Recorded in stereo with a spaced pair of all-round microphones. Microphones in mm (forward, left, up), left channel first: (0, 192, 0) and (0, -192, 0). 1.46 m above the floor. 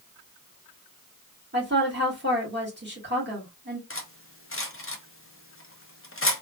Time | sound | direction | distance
1.5 | a woman speaking | 30° right (ahead or behind) | 1.9 m
3.9 | cutlery clinking | 35° left (ahead or behind) | 0.6 m